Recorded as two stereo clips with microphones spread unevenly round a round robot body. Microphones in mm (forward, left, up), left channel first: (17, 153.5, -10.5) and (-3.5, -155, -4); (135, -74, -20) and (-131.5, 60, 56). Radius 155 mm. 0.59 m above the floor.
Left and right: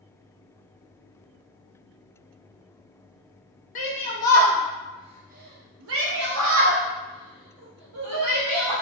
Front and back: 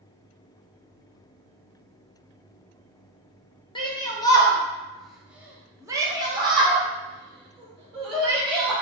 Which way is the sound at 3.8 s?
30° left.